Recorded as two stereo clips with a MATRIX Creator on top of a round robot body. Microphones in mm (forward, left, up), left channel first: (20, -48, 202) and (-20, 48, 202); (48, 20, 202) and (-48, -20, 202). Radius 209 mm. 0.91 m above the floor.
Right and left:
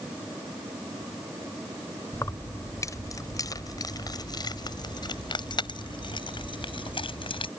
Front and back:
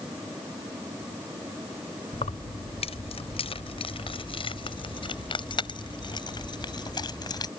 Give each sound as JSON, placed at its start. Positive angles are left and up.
{"t": 2.1, "sound": "keys jangling", "azimuth_deg": 0}